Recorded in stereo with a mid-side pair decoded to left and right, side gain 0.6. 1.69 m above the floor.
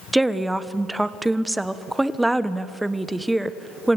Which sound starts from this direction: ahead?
A woman speaking, at 0.1 s.